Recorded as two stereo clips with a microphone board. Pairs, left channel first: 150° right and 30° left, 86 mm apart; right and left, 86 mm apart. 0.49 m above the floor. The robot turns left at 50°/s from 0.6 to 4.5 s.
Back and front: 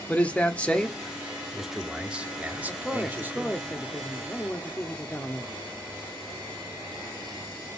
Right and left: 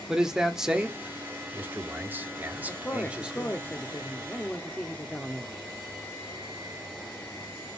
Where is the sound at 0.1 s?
165° left, 1.0 m; by 3.5 s 15° left, 1.0 m.